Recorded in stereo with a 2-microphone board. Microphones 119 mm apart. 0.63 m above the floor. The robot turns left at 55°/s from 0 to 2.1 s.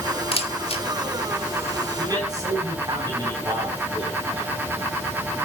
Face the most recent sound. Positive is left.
turn(degrees=-35)  # may be behind; listen again after turning